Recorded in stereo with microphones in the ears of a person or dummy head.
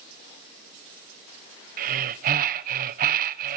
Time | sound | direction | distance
1.8 | breathing | 45° right (ahead or behind) | 1.1 m